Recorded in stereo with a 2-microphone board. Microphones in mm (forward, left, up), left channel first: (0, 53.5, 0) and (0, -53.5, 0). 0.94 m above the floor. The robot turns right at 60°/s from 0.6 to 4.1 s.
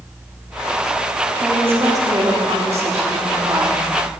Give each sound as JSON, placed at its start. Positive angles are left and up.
{"t": 1.4, "sound": "a woman speaking", "azimuth_deg": -175, "distance_m": 2.0}